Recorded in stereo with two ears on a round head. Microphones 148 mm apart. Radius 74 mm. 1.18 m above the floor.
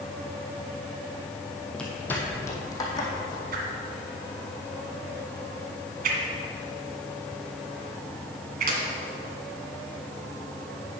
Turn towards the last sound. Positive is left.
turn(degrees=-55)  # may be behind; listen again after turning